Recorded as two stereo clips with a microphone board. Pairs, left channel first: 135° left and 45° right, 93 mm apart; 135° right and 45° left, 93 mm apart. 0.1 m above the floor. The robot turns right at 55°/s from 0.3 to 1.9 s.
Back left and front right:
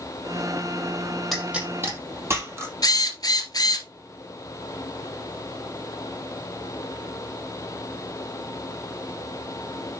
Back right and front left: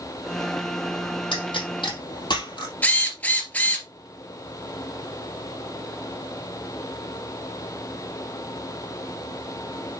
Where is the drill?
160° left, 1.9 m.